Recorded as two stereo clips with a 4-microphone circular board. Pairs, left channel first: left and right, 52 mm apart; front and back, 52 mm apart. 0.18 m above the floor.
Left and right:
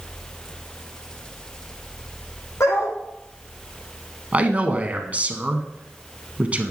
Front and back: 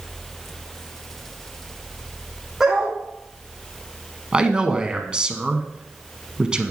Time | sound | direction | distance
2.6 | a dog barking | 100° left | 3.5 m
4.3 | a man speaking | 125° right | 1.2 m